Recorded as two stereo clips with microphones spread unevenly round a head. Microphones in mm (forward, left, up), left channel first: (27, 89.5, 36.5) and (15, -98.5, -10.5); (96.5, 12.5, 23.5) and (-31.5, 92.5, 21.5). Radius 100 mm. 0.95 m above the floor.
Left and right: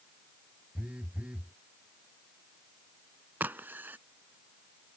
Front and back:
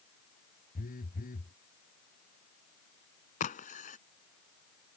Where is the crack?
5° right.